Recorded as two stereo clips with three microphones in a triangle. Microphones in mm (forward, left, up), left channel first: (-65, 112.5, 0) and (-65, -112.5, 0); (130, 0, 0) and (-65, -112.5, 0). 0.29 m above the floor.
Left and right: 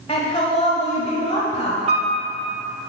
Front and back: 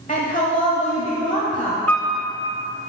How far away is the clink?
I don't hear a clink.